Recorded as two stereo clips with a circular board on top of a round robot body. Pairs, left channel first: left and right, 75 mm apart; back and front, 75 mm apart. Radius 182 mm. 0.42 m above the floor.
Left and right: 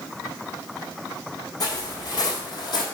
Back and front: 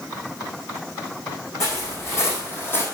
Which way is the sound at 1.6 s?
130° left.